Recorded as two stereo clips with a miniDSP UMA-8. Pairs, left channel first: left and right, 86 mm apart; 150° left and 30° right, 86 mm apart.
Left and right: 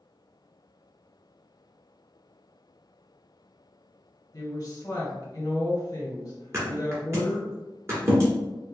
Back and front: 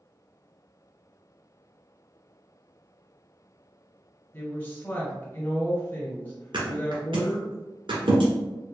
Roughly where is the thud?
Ahead right.